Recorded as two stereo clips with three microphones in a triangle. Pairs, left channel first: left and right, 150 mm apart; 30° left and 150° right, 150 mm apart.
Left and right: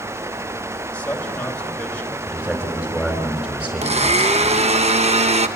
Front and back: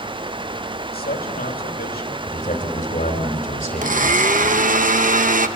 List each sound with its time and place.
0.9 s a man speaking: 10° left, 2.5 m
2.3 s a man speaking: 5° right, 4.5 m
3.8 s a blender: 130° right, 0.9 m